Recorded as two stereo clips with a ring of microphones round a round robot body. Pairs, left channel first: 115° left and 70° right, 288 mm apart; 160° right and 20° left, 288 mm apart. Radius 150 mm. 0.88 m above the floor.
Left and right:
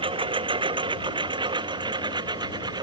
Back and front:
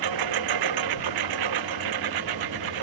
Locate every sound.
0.0 s a lawn mower: 5° left; by 2.8 s 10° left